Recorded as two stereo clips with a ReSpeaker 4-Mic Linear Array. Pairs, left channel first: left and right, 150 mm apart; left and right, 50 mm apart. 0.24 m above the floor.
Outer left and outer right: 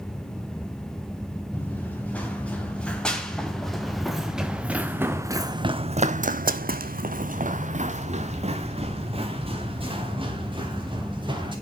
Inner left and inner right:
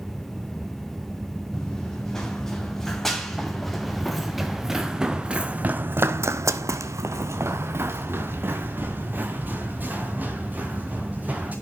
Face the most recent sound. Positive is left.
turn(degrees=-35)  # may be behind; listen again after turning